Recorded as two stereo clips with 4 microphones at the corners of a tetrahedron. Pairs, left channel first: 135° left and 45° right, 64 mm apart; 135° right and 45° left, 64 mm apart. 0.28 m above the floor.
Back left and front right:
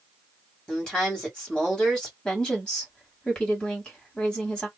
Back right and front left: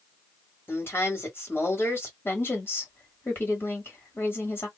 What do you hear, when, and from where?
0.7 s a woman speaking: 155° right, 1.4 m
2.2 s a woman speaking: 155° right, 1.3 m